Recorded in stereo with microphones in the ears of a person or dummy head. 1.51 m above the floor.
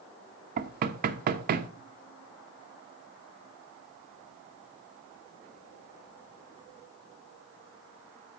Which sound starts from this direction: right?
Knocking, at 0.6 s.